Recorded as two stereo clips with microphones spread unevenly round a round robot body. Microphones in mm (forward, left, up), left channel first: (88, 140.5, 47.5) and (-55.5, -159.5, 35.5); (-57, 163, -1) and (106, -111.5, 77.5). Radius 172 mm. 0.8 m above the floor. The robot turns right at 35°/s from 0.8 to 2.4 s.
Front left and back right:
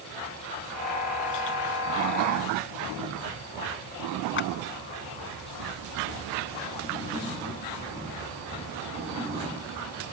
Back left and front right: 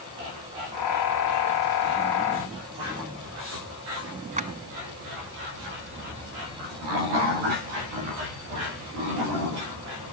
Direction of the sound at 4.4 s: 10° left.